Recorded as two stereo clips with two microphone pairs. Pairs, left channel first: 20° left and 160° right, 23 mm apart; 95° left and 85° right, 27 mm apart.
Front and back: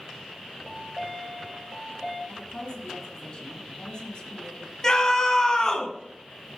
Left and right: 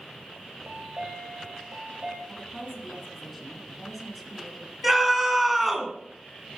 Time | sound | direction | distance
0.6 | a chime | 75° right | 3 m
2.3 | a woman speaking | 5° left | 1.7 m
4.8 | a scream | 10° right | 1.8 m